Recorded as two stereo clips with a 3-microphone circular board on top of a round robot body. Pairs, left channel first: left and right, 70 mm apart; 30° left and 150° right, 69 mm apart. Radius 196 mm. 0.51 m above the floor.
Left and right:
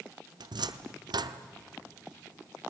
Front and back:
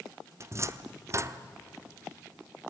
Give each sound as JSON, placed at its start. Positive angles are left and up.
{"t": 0.4, "sound": "a cupboard door", "azimuth_deg": -100, "distance_m": 0.9}